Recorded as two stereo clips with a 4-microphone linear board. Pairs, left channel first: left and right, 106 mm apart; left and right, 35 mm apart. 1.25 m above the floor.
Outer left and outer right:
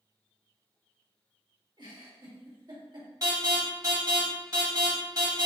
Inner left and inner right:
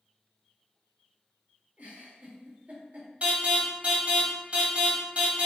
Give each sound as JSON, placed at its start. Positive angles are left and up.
{"t": 1.8, "sound": "a giggle", "side_deg": -45, "distance_m": 1.9}
{"t": 3.2, "sound": "an alarm", "side_deg": -40, "distance_m": 1.9}